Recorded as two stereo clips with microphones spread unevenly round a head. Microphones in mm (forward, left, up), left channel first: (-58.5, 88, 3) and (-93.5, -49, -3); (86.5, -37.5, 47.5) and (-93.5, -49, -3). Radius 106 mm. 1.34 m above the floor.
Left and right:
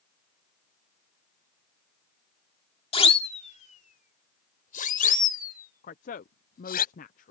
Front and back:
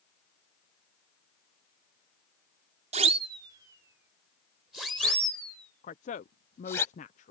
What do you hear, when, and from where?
2.9 s a siren: 120° left; by 6.8 s 80° left
5.8 s a woman speaking: 60° left